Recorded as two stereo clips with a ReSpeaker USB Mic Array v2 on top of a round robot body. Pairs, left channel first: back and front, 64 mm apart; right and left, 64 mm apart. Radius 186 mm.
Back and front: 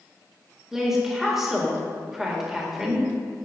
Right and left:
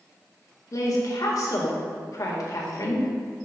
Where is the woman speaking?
85° right, 1.8 m.